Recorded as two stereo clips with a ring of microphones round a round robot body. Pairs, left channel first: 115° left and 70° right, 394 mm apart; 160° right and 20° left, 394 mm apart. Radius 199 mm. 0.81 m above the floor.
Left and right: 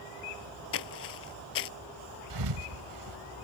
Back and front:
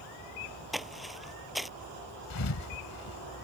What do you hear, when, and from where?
0.7 s footsteps: 110° left
2.3 s a thud: 110° right